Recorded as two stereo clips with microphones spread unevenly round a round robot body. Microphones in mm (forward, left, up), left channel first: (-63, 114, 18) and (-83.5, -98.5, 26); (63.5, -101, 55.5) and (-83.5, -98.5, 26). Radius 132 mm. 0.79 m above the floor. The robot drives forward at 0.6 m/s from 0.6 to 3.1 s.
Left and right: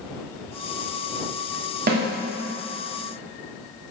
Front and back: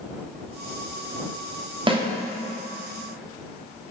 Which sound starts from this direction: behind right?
A snare drum, at 1.9 s.